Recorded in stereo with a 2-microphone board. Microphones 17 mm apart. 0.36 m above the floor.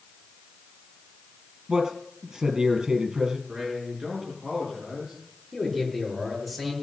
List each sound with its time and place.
1.7 s a man speaking: 45° right (ahead or behind), 4 m
3.5 s a man speaking: 65° right (ahead or behind), 6 m
5.5 s a man speaking: 15° right (ahead or behind), 6.5 m